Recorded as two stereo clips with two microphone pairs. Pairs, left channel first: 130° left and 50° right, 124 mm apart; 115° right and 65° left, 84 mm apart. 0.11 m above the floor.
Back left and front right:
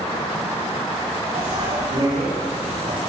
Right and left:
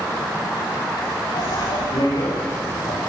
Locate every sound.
1.3 s a bicycle bell: 95° right, 9 m; by 3.0 s 80° right, 9.5 m